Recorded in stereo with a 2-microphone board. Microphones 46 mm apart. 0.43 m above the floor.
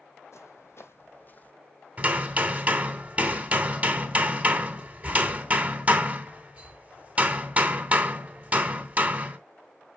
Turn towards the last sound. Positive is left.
turn(degrees=-30)  # may be behind; listen again after turning